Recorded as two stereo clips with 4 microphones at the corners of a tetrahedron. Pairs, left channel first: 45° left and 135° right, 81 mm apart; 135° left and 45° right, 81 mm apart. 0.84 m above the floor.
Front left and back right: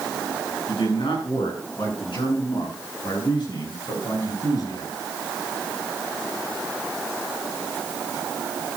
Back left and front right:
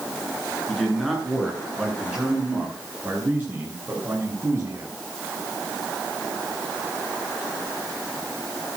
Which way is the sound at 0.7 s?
45° left.